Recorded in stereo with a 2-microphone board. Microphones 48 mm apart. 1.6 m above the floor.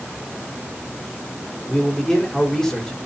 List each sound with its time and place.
1.7 s a man speaking: 10° left (ahead or behind), 5 m